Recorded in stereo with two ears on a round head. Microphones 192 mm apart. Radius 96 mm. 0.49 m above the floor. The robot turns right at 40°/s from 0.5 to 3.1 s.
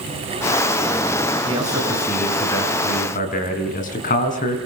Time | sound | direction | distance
1.5 | a man speaking | 25° right | 5.5 m